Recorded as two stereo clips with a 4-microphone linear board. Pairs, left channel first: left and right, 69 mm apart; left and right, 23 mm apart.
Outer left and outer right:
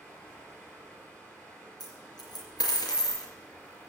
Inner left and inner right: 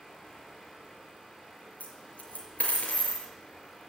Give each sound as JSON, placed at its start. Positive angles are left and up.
{"t": 0.0, "sound": "running water", "side_deg": 25, "distance_m": 6.5}
{"t": 1.8, "sound": "a dropped coin", "side_deg": 75, "distance_m": 3.5}